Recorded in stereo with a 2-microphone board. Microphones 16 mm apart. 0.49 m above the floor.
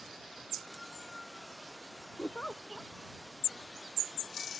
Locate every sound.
2.2 s a giggle: 90° left